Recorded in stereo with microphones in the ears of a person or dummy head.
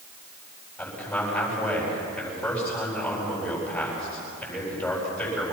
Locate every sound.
0.8 s a man speaking: 5° left (ahead or behind), 8.5 m